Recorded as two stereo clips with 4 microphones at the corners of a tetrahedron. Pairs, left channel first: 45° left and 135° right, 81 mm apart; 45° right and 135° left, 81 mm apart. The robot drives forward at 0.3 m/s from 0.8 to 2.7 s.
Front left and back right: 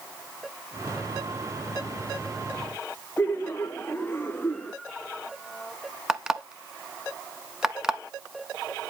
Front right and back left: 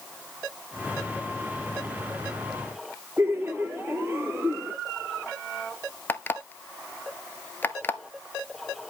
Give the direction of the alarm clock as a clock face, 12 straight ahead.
2 o'clock.